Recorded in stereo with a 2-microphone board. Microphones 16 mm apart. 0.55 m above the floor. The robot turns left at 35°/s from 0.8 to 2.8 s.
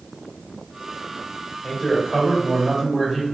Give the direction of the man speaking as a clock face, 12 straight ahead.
11 o'clock.